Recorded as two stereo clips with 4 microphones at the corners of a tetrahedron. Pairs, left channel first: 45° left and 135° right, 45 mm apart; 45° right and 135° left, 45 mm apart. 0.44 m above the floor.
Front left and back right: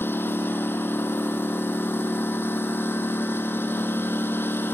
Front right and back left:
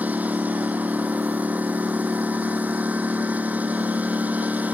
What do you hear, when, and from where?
0.0 s a lawn mower: 80° left